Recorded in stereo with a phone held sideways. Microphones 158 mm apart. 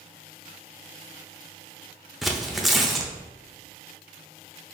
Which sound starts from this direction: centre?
Tearing paper, at 2.2 s.